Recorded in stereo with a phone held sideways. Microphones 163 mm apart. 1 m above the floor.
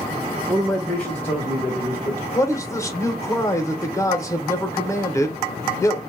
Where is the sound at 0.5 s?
10° right (ahead or behind), 0.5 m; by 2.2 s 20° left (ahead or behind), 1.3 m.